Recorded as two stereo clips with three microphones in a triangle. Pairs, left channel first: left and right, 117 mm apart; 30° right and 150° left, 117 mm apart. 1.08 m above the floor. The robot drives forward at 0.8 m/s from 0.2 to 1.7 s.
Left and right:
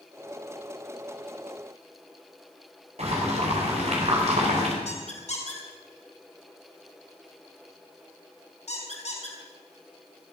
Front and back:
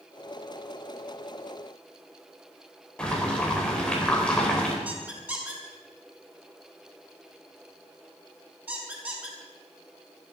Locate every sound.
3.0 s boiling: 110° right, 4.5 m
4.8 s a squeak: 75° left, 5 m